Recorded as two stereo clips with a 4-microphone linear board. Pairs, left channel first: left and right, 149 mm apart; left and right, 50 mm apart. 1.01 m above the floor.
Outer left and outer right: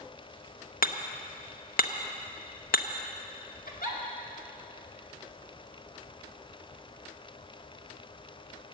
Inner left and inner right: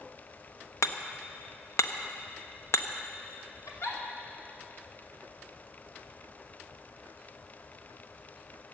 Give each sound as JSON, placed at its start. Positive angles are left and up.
{"t": 0.8, "sound": "hammering", "side_deg": 75, "distance_m": 0.8}
{"t": 3.7, "sound": "a giggle", "side_deg": 75, "distance_m": 2.5}